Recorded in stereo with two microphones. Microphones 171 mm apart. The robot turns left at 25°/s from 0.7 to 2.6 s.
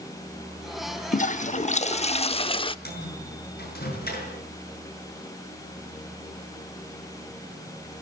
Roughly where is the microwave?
Left.